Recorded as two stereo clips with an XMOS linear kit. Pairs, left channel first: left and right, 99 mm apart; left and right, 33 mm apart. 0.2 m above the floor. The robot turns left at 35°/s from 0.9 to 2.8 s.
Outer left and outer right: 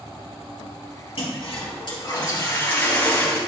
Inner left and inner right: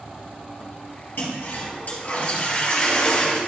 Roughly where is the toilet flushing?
Left.